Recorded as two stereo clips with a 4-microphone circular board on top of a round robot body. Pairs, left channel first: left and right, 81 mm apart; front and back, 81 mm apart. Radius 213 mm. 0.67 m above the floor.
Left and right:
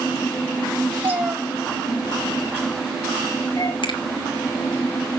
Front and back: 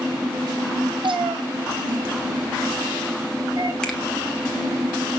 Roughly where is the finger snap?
Left.